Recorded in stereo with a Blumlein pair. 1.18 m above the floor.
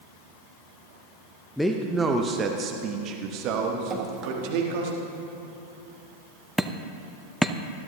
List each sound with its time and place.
1.6 s a man speaking: 5° left, 0.7 m; by 4.9 s 50° right, 2 m
3.9 s dripping: 25° right, 1.8 m
6.6 s hammering: straight ahead, 0.6 m